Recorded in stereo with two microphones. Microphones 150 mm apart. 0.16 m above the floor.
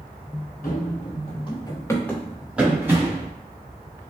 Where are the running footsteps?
65° left (ahead or behind), 1.1 m; by 3.3 s 20° right (ahead or behind), 1.4 m.